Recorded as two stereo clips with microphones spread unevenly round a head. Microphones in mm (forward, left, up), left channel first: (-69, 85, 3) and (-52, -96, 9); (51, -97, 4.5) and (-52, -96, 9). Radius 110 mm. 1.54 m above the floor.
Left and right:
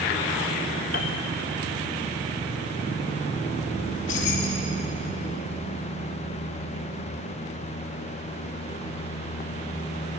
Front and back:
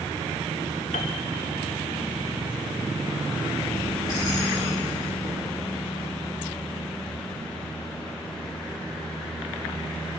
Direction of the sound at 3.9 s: 70° left.